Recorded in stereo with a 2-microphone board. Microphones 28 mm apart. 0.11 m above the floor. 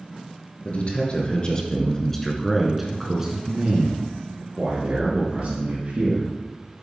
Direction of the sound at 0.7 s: 45° left (ahead or behind).